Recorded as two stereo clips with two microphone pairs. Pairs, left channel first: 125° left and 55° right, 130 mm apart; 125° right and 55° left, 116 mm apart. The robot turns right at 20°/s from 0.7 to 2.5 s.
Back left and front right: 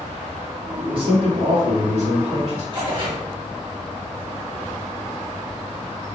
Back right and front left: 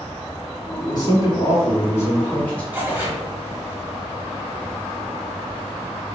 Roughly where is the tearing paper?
Ahead.